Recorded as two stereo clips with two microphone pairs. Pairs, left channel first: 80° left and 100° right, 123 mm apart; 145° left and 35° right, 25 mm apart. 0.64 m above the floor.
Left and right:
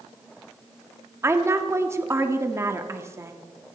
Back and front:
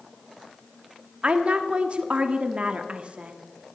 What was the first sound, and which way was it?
A woman speaking, 40° right.